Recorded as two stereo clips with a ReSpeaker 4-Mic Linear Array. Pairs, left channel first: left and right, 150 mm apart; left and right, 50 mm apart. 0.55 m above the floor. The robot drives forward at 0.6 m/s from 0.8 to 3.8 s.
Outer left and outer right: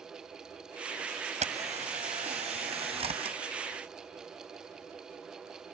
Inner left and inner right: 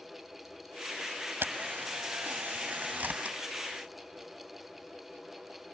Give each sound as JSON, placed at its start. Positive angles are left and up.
{"t": 1.4, "sound": "a camera shutter", "side_deg": -50}